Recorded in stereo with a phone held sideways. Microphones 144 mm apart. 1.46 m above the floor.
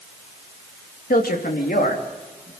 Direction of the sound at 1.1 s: 85° left.